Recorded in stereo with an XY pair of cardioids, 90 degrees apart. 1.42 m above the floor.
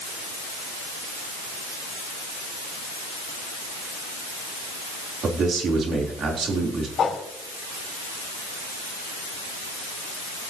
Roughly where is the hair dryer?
I don't hear a hair dryer.